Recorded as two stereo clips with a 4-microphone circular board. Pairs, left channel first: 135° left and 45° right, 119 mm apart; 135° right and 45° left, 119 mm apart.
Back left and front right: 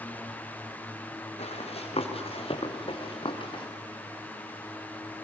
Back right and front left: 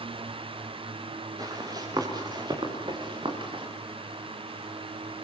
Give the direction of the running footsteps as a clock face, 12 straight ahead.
9 o'clock.